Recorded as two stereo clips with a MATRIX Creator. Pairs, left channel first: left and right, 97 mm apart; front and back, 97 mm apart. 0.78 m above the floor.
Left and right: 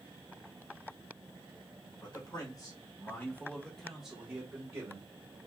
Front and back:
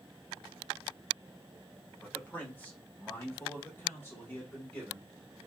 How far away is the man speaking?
About 1.3 m.